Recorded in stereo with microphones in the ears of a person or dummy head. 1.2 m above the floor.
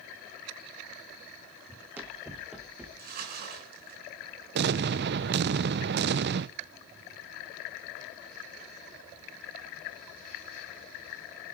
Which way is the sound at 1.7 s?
15° right (ahead or behind).